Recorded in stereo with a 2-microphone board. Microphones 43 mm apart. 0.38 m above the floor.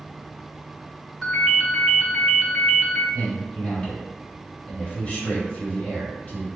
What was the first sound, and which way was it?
A ringtone, 5° left (ahead or behind).